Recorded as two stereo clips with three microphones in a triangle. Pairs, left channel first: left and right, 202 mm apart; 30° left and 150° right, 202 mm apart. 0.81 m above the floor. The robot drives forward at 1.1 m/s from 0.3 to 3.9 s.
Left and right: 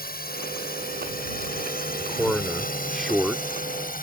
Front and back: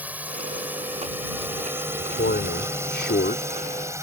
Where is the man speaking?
Straight ahead.